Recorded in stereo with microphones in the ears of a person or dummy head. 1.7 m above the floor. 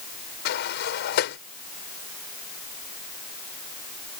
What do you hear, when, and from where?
0.5 s a sliding door: 60° left (ahead or behind)